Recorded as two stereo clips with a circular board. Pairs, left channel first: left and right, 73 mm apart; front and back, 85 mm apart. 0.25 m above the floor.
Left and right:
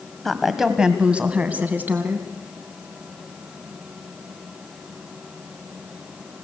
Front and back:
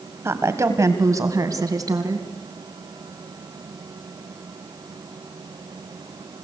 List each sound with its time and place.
0.2 s a woman speaking: 175° left, 1.5 m; by 2.3 s 145° right, 2.5 m